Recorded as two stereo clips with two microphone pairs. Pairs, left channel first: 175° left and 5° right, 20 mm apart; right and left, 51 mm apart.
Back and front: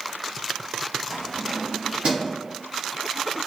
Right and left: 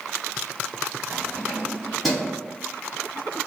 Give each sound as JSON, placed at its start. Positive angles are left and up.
{"t": 1.1, "sound": "keys jangling", "azimuth_deg": 55, "distance_m": 1.8}